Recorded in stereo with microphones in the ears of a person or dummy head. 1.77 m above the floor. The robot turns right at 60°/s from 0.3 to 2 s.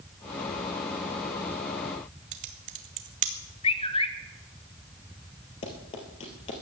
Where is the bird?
30° left (ahead or behind), 1.1 m.